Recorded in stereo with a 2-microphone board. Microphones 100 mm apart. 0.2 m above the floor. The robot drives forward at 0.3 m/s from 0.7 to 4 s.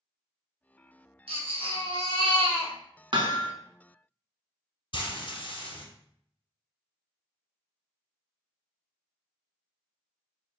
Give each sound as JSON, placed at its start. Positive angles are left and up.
{"t": 1.3, "sound": "a baby crying", "side_deg": -70, "distance_m": 1.4}
{"t": 3.1, "sound": "hammering", "side_deg": -55, "distance_m": 0.5}
{"t": 4.9, "sound": "frying", "side_deg": 55, "distance_m": 1.0}